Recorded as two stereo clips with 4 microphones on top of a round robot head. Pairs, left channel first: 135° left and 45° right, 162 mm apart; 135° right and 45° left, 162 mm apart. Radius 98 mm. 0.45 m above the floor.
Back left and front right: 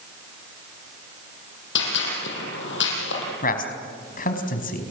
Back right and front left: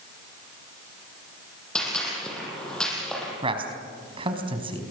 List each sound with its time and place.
1.8 s a gunshot: 135° left, 6.5 m
3.4 s a man speaking: 105° left, 4.5 m